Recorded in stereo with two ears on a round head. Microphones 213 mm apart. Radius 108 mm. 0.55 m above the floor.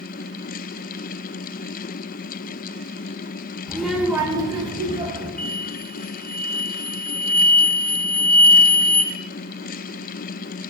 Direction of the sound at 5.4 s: 5° left (ahead or behind).